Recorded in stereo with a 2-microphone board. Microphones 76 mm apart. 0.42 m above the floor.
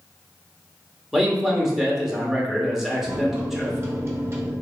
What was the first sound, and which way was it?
A man speaking, 5° right (ahead or behind).